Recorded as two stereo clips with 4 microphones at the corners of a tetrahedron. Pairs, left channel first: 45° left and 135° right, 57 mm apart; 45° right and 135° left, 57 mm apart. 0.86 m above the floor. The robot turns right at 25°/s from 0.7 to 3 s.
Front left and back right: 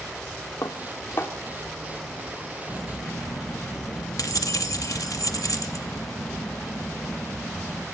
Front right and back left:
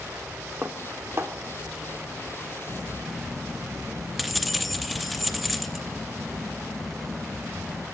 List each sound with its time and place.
0.6 s dishes clattering: 80° left, 1.3 m; by 1.3 s 95° left, 1.3 m
2.7 s keys jangling: 35° left, 0.9 m; by 7.8 s 45° left, 0.9 m